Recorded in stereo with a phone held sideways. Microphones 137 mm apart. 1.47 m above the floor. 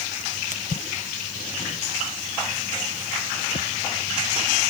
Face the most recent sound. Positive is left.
turn(degrees=70)  # may be behind; listen again after turning